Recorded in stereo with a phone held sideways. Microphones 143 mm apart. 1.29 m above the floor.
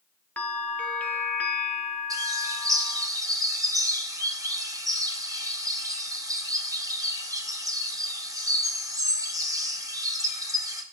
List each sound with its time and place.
0.4 s a bell: 10° left (ahead or behind), 0.6 m
2.1 s a bird: 25° right (ahead or behind), 0.6 m